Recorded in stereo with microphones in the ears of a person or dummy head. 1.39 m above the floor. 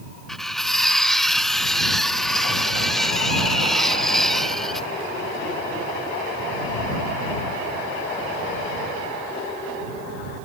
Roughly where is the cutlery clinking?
Centre.